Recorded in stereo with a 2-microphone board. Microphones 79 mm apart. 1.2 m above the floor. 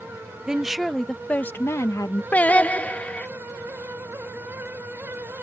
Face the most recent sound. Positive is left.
turn(degrees=20)  # may be behind; listen again after turning